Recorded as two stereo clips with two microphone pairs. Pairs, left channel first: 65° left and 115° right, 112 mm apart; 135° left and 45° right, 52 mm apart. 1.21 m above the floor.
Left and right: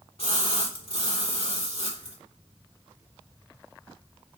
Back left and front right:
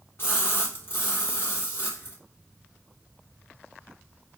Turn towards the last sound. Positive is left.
turn(degrees=90)